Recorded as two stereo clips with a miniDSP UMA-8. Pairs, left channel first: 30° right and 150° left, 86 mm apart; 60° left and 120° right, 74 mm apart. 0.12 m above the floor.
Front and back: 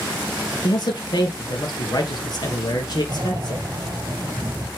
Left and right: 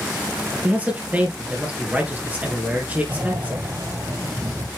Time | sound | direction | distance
0.6 | a man speaking | 55° right | 3 m
3.1 | breathing | 165° right | 1.3 m